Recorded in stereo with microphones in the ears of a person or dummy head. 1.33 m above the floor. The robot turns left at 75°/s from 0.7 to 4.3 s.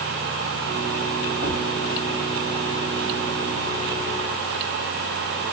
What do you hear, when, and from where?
1.4 s a thud: 25° right (ahead or behind), 1.5 m; by 1.7 s 45° right (ahead or behind), 1.5 m